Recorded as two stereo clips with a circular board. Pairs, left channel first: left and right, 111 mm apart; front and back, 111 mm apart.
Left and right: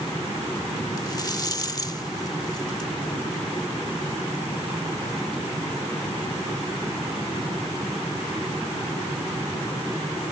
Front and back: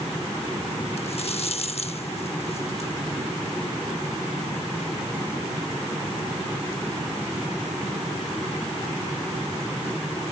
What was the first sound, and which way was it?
A rattle, 30° left.